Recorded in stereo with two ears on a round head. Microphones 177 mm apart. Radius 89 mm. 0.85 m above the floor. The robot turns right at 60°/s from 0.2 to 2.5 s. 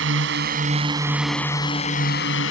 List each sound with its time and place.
0.0 s a drone: 65° right; by 2.5 s 75° left